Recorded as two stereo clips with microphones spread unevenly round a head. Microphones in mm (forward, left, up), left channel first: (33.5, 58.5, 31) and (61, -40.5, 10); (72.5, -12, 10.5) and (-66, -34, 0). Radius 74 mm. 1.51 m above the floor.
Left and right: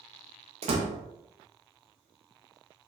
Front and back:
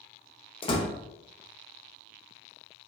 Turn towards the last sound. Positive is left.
turn(degrees=-45)